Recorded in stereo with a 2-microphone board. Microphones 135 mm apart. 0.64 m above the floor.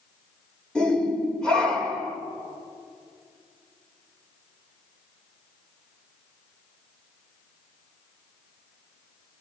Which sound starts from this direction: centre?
A shout, at 0.8 s.